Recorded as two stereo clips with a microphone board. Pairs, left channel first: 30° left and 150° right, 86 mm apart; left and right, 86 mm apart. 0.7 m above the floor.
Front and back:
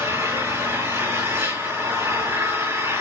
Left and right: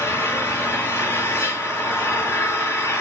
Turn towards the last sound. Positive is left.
turn(degrees=155)